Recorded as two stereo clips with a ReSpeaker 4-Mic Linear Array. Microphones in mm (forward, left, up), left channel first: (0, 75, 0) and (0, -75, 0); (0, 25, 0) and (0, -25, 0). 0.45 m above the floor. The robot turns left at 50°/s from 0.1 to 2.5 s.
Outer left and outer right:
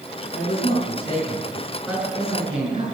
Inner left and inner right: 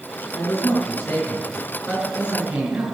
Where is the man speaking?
70° left, 6 m; by 2.8 s 35° right, 6 m.